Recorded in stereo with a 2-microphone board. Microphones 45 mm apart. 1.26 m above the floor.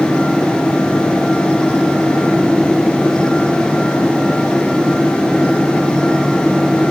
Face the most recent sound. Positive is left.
No sound to turn to.